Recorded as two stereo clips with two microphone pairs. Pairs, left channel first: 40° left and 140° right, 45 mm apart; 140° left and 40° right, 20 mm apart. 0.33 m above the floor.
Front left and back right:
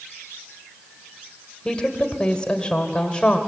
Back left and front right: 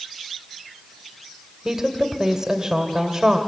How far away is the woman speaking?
About 1.7 m.